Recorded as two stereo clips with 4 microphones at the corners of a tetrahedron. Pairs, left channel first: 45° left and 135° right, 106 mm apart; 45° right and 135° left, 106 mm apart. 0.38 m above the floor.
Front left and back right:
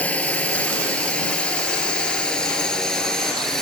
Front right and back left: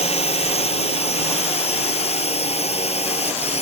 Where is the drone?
30° right; by 3.6 s 40° right.